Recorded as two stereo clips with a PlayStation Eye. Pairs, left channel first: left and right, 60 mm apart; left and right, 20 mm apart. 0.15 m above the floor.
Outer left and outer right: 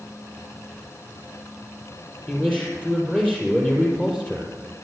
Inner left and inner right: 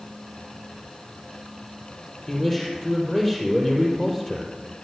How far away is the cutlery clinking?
I don't hear cutlery clinking.